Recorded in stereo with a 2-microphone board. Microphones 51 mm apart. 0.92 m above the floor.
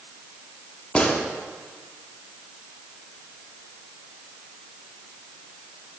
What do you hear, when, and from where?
0.9 s a gunshot: 25° left (ahead or behind), 0.8 m